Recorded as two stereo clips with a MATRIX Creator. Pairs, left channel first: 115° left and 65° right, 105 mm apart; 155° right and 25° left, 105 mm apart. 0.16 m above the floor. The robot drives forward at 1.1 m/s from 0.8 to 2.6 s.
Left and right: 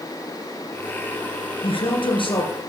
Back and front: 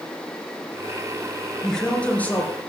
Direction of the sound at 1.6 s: 115° left.